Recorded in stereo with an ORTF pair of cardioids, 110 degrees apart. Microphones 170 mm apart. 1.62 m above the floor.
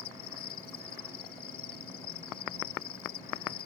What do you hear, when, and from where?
0.0 s an insect: 70° left